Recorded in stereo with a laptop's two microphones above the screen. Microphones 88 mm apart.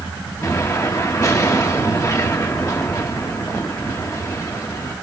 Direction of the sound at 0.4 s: 35° left (ahead or behind).